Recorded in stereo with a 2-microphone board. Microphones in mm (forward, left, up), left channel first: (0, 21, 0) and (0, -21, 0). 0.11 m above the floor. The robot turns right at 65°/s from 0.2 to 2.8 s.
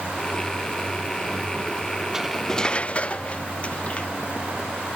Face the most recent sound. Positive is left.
turn(degrees=30)